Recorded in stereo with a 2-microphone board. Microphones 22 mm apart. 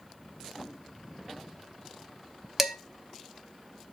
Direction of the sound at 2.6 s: 10° right (ahead or behind).